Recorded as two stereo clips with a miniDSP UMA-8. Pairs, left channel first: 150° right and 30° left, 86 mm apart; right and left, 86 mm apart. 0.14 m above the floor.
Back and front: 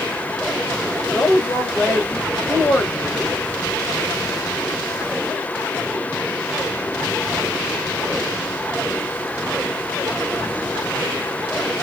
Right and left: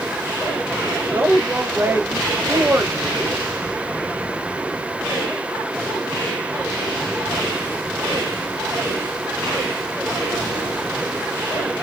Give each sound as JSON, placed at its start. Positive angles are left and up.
{"t": 1.1, "sound": "a woman speaking", "azimuth_deg": 145, "distance_m": 2.0}